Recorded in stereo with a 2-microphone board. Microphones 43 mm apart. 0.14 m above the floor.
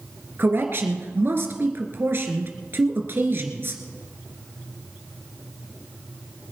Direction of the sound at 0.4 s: 55° right (ahead or behind).